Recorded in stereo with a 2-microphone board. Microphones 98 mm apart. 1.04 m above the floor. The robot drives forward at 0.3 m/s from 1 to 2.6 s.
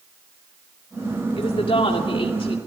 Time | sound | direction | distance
1.4 | a woman speaking | 65° left (ahead or behind) | 2.5 m